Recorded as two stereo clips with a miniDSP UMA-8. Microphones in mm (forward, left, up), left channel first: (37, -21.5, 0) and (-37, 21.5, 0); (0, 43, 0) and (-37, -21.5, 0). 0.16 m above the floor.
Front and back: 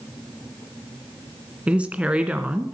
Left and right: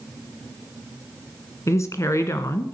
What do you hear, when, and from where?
1.7 s a woman speaking: 80° left, 1.6 m